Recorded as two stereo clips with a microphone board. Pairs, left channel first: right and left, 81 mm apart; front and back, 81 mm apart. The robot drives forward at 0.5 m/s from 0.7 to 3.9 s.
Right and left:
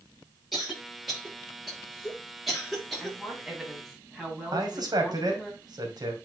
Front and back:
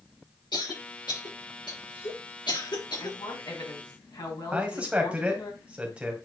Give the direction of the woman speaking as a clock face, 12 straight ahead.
12 o'clock.